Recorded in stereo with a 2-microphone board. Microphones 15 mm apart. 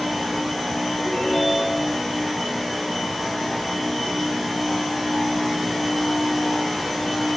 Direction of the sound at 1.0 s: 40° left (ahead or behind).